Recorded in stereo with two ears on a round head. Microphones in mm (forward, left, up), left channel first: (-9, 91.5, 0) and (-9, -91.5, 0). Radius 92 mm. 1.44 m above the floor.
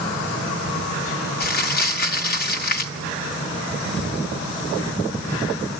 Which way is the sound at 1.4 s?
50° left (ahead or behind).